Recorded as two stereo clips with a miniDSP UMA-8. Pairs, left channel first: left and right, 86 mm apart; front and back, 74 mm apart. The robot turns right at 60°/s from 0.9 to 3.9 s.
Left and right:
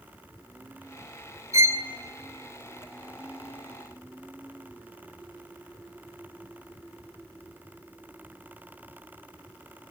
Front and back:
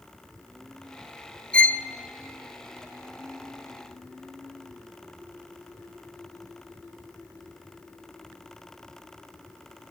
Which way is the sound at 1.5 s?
70° right.